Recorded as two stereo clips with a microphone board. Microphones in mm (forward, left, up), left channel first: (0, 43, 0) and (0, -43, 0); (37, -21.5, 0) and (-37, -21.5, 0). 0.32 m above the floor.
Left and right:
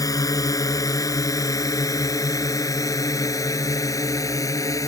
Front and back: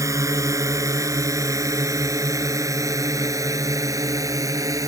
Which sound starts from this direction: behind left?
A drone, at 0.0 s.